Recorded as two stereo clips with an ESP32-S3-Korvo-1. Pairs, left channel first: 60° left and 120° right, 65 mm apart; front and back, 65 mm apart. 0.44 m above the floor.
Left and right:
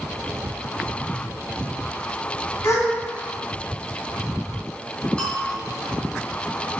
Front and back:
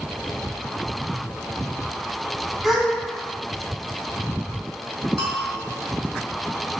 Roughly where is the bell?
Behind left.